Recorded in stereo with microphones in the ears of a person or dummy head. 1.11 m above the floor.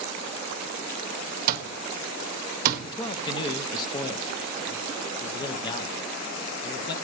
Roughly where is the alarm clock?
Right.